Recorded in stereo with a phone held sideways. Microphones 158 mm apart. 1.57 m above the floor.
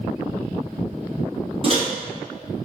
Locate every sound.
1.6 s a microwave: 40° right (ahead or behind), 1.0 m